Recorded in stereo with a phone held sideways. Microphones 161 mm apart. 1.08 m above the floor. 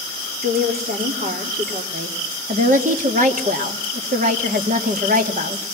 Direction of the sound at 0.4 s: 70° right (ahead or behind).